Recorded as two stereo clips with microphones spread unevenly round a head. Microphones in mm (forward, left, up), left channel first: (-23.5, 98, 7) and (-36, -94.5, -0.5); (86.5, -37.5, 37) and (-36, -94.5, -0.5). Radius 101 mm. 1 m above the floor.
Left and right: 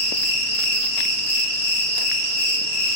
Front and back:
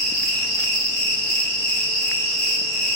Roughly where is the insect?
Behind left.